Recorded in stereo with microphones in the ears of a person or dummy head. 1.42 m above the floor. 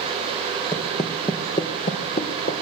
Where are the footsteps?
20° left (ahead or behind), 3 m; by 2.6 s 40° left (ahead or behind), 4 m.